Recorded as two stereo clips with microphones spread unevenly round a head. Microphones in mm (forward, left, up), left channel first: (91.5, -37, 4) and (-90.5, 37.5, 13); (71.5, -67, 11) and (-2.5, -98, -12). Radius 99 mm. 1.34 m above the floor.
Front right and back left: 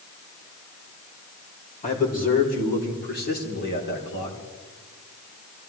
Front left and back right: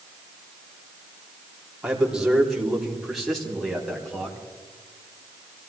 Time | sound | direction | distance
1.8 | a man speaking | 75° right | 3.5 m